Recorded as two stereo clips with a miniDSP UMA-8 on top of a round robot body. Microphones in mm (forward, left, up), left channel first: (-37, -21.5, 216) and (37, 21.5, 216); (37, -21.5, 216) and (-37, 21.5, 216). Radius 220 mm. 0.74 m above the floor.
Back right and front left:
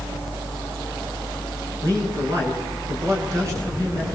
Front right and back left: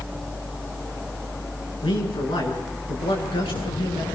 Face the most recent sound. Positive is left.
turn(degrees=-20)